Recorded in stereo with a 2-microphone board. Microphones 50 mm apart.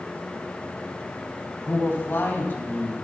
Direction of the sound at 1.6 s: 45° left (ahead or behind).